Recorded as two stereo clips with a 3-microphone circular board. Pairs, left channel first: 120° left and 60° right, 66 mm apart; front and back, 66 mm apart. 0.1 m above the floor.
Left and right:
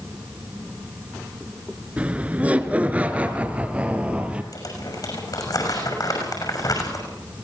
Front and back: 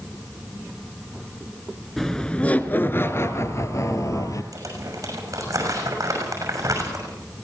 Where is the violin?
I don't hear a violin.